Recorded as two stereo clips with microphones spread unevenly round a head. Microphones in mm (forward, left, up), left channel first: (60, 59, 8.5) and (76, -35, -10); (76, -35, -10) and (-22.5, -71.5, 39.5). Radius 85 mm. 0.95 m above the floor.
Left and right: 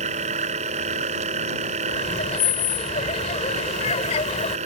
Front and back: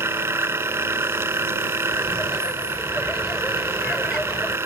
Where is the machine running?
100° right.